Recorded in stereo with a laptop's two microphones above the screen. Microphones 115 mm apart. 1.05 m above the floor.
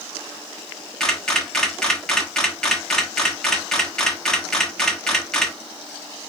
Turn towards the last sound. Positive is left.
turn(degrees=5)  # may be behind; listen again after turning